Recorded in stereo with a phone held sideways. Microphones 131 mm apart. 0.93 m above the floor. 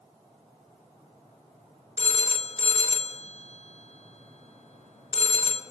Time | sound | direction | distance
2.0 | a phone ringing | 55° left (ahead or behind) | 0.9 m